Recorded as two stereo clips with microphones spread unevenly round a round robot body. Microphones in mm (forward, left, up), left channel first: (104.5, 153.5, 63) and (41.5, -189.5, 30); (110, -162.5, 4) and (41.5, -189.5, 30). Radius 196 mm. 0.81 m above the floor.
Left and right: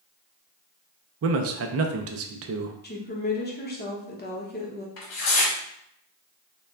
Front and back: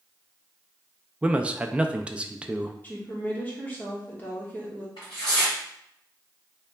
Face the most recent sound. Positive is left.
turn(degrees=65)